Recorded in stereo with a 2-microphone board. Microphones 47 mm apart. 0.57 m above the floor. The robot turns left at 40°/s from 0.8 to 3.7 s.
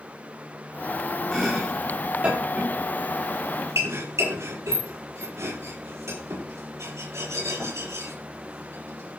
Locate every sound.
1.3 s chopping: 5° left (ahead or behind), 8.5 m; by 9.2 s 90° right, 8.5 m